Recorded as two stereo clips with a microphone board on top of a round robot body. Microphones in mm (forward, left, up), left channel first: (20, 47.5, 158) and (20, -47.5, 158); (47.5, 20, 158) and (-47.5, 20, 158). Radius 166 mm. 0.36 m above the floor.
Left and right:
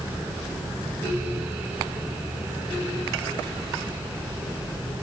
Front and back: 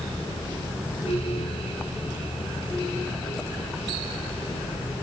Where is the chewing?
No chewing in this recording.